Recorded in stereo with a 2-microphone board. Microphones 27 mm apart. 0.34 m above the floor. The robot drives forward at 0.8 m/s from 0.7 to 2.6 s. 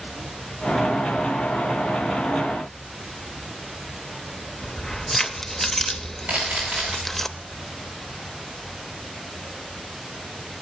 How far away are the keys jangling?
About 0.5 m.